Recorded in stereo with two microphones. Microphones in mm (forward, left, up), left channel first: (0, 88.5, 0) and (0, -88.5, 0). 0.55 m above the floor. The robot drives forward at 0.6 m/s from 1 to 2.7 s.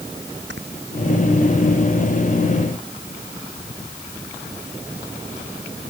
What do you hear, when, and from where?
0.5 s snoring: 85° right